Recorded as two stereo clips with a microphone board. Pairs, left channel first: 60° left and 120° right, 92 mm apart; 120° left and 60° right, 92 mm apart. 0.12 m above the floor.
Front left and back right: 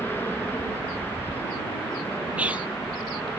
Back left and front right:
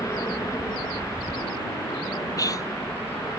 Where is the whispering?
165° left.